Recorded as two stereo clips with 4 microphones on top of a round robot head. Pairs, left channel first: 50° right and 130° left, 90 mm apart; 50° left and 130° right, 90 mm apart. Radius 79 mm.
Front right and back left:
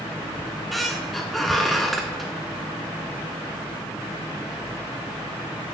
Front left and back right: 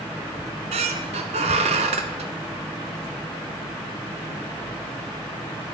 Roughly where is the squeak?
Behind right.